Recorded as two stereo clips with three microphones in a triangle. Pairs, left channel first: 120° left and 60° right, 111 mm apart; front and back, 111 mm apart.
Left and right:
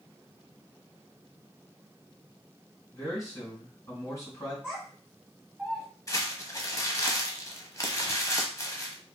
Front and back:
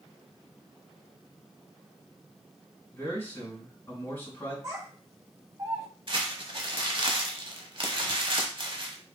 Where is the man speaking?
65° left, 2.5 m.